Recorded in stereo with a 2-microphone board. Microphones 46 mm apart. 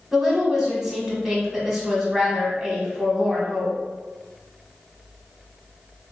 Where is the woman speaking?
10° right (ahead or behind), 1.3 m.